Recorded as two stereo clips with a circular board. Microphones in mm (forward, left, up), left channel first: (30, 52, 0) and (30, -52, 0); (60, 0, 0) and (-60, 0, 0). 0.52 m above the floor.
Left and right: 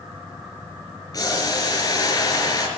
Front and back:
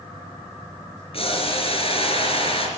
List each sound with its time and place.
1.1 s boiling: 35° left, 4 m